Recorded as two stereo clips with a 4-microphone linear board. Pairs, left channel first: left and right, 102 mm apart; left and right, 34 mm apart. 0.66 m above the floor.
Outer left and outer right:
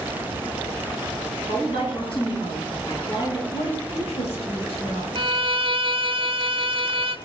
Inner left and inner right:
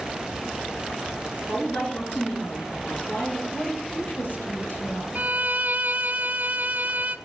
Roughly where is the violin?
Right.